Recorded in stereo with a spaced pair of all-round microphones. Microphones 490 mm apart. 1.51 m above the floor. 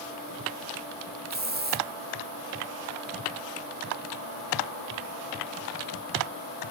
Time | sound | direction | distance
1.3 | a hiss | 20° right (ahead or behind) | 0.6 m